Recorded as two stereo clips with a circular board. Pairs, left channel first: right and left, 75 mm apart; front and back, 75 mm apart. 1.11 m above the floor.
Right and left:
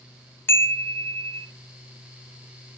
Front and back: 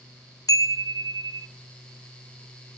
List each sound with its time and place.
0.5 s a chime: 35° right, 0.5 m